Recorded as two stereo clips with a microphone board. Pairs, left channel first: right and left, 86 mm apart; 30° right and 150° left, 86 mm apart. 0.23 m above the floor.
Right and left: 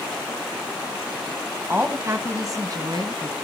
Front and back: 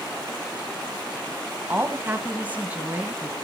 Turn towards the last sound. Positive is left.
turn(degrees=75)